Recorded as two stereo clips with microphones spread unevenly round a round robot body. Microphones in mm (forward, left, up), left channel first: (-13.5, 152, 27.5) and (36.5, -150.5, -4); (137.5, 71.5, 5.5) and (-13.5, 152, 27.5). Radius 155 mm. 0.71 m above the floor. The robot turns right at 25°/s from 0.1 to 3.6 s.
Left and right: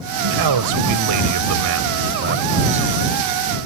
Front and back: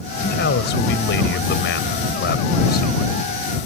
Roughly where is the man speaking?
Right.